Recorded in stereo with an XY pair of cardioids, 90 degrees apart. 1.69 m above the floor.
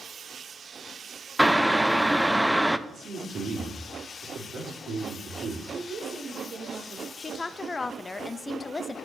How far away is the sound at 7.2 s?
About 0.6 m.